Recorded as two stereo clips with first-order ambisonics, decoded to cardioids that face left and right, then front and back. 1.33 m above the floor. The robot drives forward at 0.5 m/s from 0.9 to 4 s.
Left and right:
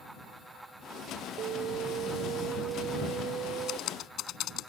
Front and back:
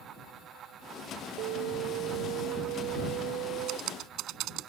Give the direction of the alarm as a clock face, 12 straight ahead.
5 o'clock.